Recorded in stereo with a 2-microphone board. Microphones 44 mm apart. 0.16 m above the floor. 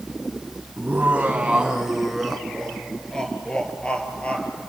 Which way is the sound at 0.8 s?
40° right (ahead or behind).